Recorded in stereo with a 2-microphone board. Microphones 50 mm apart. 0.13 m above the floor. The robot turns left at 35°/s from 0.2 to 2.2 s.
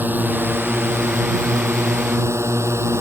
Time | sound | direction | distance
0.0 | a drone | 40° right | ?